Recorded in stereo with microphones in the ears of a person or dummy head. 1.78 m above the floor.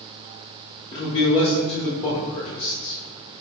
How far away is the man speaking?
About 1.0 m.